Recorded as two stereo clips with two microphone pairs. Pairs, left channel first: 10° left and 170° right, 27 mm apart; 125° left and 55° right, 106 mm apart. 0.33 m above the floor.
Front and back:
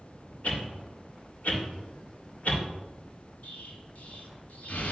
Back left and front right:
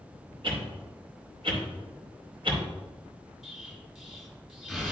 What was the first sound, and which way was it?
A whoosh, 25° right.